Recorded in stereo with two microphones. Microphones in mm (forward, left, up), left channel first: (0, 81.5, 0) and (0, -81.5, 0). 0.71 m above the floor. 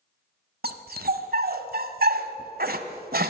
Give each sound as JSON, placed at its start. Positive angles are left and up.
{"t": 0.6, "sound": "a dog barking", "side_deg": -70, "distance_m": 1.3}